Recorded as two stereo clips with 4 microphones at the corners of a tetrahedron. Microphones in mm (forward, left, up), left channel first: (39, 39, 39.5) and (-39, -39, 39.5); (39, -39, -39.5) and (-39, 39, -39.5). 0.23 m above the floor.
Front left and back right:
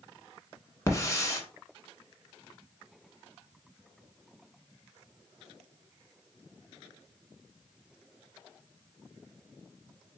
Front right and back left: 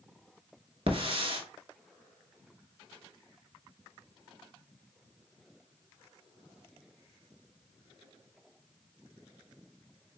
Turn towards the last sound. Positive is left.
turn(degrees=105)